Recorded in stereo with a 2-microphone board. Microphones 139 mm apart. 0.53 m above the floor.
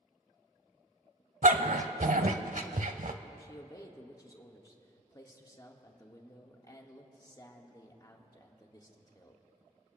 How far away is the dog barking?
About 0.7 m.